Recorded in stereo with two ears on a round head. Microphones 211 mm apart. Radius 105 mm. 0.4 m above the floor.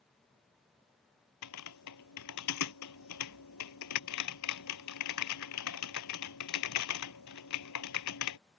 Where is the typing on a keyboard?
90° left.